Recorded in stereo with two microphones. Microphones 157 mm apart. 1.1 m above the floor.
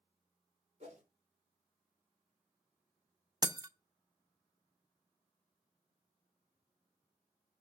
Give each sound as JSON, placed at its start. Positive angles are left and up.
{"t": 0.8, "sound": "a whoosh", "side_deg": -50, "distance_m": 3.5}
{"t": 3.4, "sound": "breaking glass", "side_deg": -25, "distance_m": 0.8}